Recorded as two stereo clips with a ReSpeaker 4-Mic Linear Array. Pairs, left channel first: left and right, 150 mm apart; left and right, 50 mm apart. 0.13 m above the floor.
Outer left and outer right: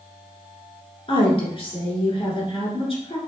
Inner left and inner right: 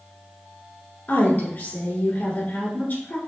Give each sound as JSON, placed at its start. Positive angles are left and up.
{"t": 1.1, "sound": "a woman speaking", "side_deg": 40, "distance_m": 1.8}